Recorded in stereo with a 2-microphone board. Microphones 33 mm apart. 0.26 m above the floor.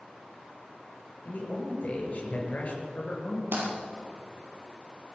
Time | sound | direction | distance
1.2 | a man speaking | 45° left (ahead or behind) | 4.5 m
3.5 | breaking glass | 80° right | 4.5 m